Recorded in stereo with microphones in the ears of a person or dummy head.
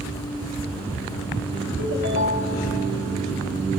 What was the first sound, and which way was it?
A ringtone, 80° left.